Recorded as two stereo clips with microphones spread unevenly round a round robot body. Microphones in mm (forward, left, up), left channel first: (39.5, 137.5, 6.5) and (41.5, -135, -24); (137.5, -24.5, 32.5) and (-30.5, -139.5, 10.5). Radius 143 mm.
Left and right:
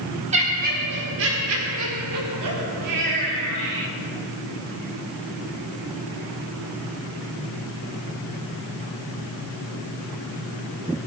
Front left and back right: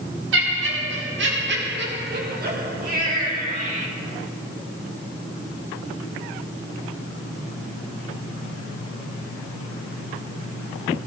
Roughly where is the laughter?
Behind right.